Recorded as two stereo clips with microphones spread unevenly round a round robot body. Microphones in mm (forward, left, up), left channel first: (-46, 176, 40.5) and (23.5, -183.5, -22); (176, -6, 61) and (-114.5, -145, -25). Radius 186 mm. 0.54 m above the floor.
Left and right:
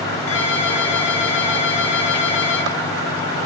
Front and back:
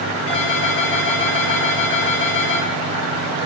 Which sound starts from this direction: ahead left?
A ringtone, at 0.3 s.